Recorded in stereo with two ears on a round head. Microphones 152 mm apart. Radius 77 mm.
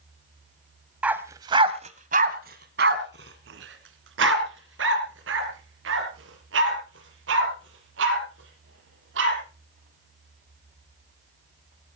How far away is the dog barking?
About 1.6 m.